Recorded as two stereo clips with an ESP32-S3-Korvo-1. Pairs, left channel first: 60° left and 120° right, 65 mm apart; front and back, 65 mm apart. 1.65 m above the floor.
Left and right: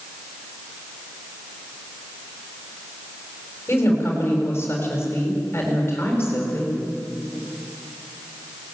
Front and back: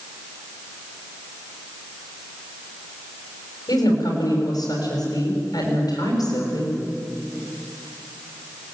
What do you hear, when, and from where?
3.7 s a woman speaking: 5° left, 7.5 m